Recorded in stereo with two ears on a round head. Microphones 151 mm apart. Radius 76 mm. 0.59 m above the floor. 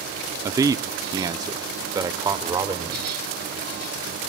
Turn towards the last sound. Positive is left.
turn(degrees=-20)  # may be behind; listen again after turning